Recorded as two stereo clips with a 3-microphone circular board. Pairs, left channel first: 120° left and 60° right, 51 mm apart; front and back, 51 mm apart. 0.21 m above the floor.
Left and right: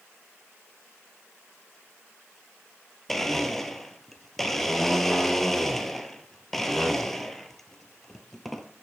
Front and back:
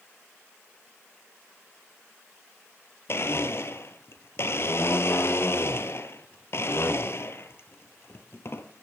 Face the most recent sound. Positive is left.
turn(degrees=35)